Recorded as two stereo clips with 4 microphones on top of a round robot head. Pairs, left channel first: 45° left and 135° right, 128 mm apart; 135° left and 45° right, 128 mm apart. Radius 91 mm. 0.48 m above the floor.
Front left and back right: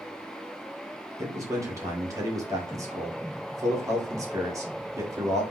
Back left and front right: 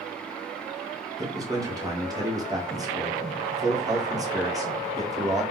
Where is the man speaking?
85° right, 1.8 m.